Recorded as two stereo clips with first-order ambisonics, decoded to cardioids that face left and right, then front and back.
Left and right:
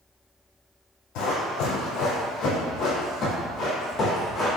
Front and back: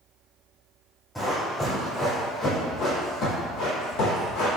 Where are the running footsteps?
85° left, 1.7 m; by 4.5 s 15° left, 1.7 m.